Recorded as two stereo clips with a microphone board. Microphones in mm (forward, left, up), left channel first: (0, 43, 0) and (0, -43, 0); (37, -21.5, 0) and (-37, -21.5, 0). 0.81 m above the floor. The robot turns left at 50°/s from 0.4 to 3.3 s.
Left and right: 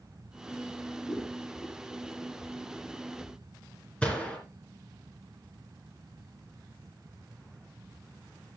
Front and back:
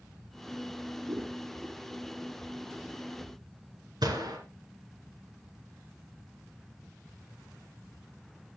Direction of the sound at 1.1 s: 155° left.